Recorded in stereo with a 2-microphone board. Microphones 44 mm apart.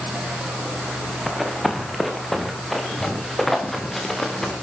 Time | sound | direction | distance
1.3 | running footsteps | centre (ahead or behind) | 3.5 m